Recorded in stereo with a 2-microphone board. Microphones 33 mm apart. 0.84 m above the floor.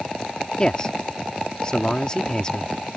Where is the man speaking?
25° left (ahead or behind).